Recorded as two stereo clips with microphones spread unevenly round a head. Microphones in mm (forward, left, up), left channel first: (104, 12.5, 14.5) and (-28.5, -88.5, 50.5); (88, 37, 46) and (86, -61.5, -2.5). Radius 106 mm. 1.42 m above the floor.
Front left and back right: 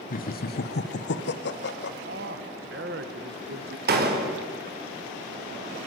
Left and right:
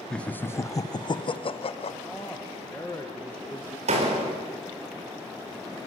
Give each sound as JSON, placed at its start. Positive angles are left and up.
{"t": 0.1, "sound": "laughter", "azimuth_deg": 0, "distance_m": 1.4}
{"t": 2.0, "sound": "a man speaking", "azimuth_deg": 175, "distance_m": 1.5}
{"t": 3.9, "sound": "a door slam", "azimuth_deg": -120, "distance_m": 4.5}